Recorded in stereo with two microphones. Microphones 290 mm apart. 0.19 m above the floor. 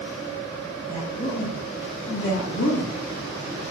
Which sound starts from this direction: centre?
A woman speaking, at 0.9 s.